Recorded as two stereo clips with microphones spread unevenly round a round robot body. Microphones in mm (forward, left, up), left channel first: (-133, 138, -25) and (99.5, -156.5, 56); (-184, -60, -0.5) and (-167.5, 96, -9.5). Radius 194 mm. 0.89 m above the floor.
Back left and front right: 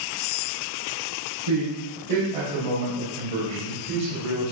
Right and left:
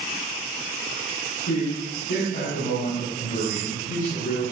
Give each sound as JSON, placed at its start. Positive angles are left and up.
{"t": 1.5, "sound": "a man speaking", "azimuth_deg": -65, "distance_m": 5.5}